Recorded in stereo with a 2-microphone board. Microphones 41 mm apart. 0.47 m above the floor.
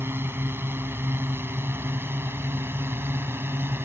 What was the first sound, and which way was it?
A drone, 65° right (ahead or behind).